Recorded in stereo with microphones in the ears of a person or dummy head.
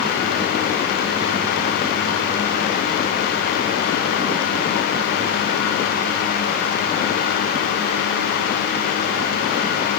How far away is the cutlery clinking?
I don't hear cutlery clinking.